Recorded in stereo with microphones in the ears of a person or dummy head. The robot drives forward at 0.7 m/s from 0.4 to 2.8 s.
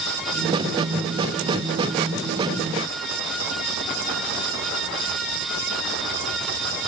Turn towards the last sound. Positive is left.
No sound to turn to.